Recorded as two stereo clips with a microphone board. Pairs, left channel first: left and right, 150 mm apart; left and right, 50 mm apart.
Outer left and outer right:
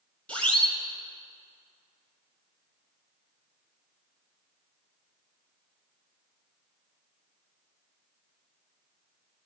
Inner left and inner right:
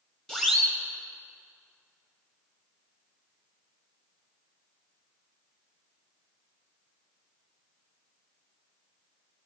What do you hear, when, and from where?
0.3 s a siren: 10° left (ahead or behind), 4 m